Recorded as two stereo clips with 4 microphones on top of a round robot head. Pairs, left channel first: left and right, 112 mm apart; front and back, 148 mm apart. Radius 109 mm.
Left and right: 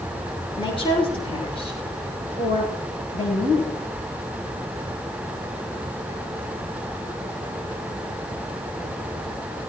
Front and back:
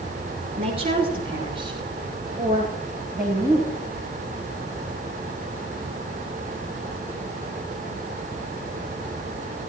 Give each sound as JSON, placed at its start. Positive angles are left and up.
{"t": 0.6, "sound": "a woman speaking", "azimuth_deg": 130, "distance_m": 9.0}